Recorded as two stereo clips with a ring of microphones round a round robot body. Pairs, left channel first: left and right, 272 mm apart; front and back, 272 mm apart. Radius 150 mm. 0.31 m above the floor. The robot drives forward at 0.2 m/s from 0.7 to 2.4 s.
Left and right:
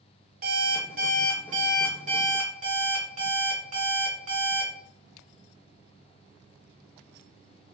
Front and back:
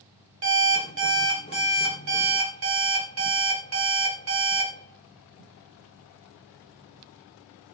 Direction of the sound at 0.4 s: 145° right.